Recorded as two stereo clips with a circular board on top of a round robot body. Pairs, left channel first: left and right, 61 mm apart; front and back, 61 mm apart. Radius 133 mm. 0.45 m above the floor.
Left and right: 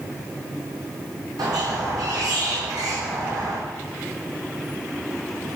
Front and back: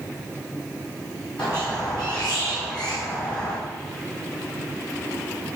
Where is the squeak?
75° right, 2 m.